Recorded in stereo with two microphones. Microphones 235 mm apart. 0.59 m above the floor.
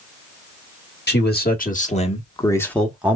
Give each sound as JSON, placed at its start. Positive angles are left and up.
{"t": 1.1, "sound": "a man speaking", "side_deg": 45, "distance_m": 1.4}